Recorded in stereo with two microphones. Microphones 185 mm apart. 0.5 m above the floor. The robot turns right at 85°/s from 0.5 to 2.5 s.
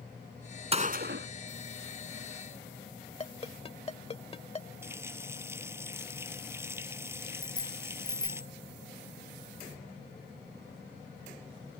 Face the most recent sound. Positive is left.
turn(degrees=20)  # may be behind; listen again after turning